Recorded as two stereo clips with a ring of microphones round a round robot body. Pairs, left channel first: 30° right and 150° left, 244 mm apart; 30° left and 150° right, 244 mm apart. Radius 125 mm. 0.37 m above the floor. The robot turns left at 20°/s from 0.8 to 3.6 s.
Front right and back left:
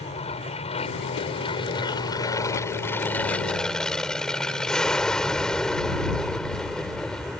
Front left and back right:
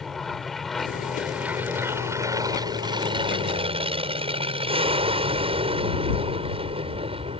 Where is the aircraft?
60° right; by 7.4 s 115° right.